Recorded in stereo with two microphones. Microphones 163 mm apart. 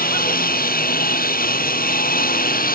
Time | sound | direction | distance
0.0 | a lawn mower | 65° left (ahead or behind) | ?